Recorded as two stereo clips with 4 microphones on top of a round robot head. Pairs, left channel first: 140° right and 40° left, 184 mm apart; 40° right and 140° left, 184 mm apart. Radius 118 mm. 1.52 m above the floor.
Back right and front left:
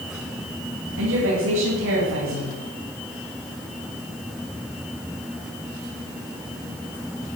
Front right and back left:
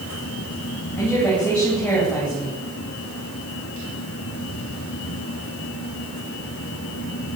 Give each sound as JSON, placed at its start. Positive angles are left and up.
{"t": 1.0, "sound": "a woman speaking", "azimuth_deg": 45, "distance_m": 10.0}